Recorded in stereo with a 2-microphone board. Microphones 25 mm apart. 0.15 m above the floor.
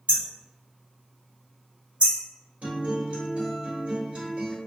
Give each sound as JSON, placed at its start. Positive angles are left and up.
{"t": 0.1, "sound": "hammering", "side_deg": -50, "distance_m": 1.9}
{"t": 2.6, "sound": "a guitar", "side_deg": -55, "distance_m": 1.7}